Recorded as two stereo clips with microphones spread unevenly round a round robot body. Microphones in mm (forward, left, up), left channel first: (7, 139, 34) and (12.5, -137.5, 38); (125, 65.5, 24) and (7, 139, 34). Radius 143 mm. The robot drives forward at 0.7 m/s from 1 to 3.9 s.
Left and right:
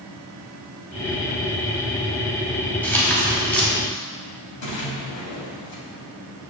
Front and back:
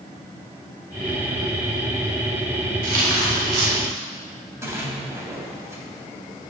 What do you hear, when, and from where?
2.8 s tearing paper: 175° left, 2 m
4.6 s a splash: 80° left, 2.5 m